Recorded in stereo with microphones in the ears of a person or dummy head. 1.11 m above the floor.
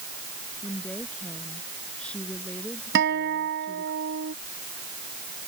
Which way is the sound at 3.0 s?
60° right (ahead or behind).